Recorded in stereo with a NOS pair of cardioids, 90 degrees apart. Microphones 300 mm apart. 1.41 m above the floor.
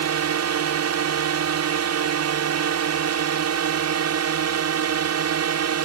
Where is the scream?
No scream in this recording.